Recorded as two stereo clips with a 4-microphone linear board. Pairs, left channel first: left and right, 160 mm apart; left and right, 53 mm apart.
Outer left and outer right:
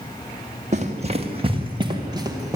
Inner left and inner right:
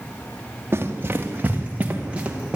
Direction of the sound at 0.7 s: 50° right (ahead or behind).